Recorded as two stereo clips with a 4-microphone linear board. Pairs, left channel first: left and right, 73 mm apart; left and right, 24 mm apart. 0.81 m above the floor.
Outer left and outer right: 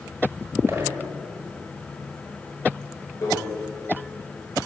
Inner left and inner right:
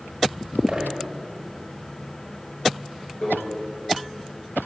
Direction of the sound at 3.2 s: 40° left (ahead or behind).